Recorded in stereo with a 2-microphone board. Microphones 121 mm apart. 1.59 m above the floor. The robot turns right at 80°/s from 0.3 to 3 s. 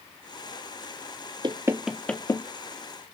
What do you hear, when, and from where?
1.4 s knocking: 40° right (ahead or behind), 0.8 m; by 2.5 s 35° left (ahead or behind), 0.8 m